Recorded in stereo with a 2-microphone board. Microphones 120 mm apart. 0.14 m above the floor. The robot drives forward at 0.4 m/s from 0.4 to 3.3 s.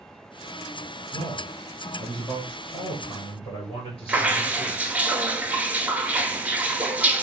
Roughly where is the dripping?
Centre.